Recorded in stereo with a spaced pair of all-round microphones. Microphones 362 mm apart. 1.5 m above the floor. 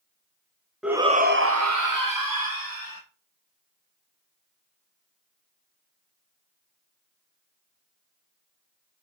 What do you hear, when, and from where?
0.8 s a shout: centre (ahead or behind), 0.7 m; by 3.0 s 75° right (ahead or behind), 1.4 m